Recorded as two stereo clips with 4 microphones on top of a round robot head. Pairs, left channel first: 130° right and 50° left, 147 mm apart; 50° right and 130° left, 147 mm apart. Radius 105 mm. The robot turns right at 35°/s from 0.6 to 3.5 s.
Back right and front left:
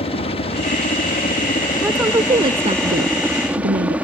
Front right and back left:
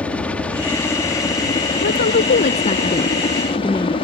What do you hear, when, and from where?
0.0 s a helicopter: 130° right; by 4.0 s 25° right
1.8 s a woman speaking: 30° right; by 4.0 s 25° left